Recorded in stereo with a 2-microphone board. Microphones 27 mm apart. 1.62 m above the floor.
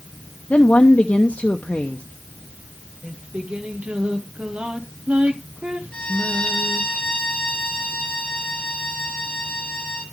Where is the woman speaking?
60° left (ahead or behind), 0.7 m.